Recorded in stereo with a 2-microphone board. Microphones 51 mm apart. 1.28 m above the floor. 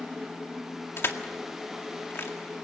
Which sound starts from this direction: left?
Crushing, at 1.0 s.